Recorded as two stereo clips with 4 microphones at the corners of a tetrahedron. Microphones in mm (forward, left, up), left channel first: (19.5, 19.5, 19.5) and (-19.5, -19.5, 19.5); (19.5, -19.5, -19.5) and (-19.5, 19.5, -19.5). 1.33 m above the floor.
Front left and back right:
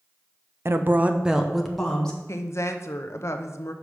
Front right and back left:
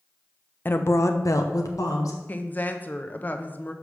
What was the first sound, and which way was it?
A woman speaking, 95° right.